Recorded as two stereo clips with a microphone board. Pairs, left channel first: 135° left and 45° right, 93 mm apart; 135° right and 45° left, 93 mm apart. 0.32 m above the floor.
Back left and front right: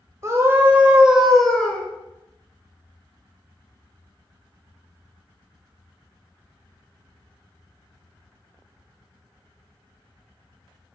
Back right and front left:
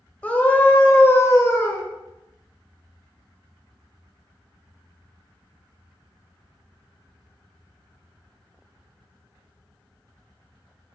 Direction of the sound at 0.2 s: 75° right.